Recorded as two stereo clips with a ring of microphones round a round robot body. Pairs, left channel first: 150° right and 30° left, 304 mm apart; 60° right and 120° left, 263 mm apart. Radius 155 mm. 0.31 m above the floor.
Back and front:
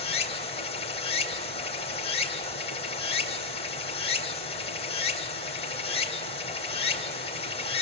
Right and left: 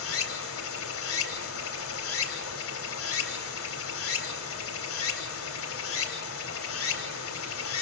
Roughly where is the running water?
Right.